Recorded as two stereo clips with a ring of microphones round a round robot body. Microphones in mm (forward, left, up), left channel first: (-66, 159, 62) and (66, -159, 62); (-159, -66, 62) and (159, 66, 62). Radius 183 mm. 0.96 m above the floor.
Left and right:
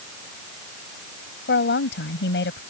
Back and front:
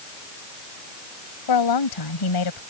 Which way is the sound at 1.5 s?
175° left.